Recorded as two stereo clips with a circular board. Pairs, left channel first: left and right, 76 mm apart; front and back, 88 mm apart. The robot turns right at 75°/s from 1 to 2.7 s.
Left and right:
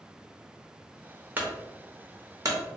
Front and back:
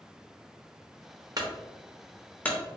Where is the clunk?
150° right, 0.8 m; by 2.6 s 60° right, 0.8 m.